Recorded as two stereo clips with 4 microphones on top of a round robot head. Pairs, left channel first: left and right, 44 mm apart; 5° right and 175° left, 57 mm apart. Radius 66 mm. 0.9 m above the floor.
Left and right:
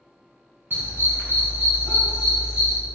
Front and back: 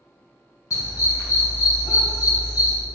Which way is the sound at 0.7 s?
40° right.